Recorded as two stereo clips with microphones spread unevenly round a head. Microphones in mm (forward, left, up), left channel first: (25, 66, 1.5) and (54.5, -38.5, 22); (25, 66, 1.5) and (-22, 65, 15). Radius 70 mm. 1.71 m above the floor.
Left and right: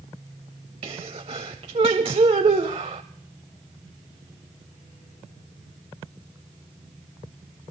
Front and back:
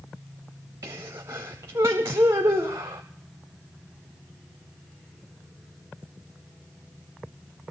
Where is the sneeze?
130° right, 0.5 m.